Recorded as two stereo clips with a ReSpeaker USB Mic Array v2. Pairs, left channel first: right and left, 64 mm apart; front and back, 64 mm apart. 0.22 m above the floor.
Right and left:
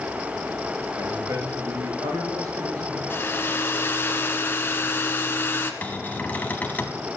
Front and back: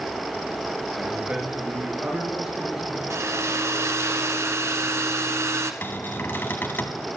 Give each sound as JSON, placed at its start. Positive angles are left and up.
{"t": 1.0, "sound": "a man speaking", "azimuth_deg": 110, "distance_m": 4.0}
{"t": 3.1, "sound": "a hair dryer", "azimuth_deg": -140, "distance_m": 1.3}
{"t": 5.8, "sound": "a cupboard door", "azimuth_deg": -40, "distance_m": 1.4}